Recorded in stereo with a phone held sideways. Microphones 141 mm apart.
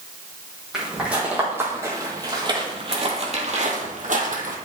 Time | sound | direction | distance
0.7 | footsteps | 5° right (ahead or behind) | 3 m